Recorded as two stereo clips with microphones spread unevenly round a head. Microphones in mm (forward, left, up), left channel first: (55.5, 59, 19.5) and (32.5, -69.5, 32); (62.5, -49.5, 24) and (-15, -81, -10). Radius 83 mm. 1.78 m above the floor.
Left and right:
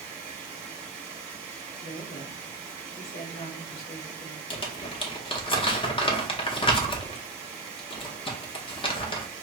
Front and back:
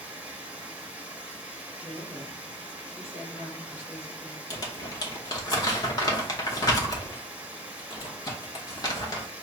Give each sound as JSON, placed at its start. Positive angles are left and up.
{"t": 0.0, "sound": "running water", "azimuth_deg": -60, "distance_m": 1.3}
{"t": 1.8, "sound": "a woman speaking", "azimuth_deg": 105, "distance_m": 1.4}
{"t": 4.5, "sound": "crumpling", "azimuth_deg": 30, "distance_m": 0.7}